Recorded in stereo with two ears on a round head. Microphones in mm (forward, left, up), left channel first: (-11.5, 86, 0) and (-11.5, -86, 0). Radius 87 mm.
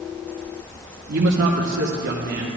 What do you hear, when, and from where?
1.1 s a man speaking: 45° right (ahead or behind), 0.8 m; by 2.5 s 50° right (ahead or behind), 1.6 m